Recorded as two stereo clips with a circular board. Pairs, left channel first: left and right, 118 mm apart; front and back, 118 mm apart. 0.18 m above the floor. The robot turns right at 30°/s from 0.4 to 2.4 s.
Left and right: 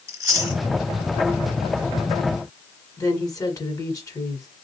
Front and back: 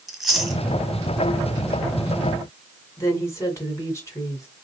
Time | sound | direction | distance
0.1 | chewing | 100° right | 1.5 m
3.0 | a woman speaking | 50° left | 1.6 m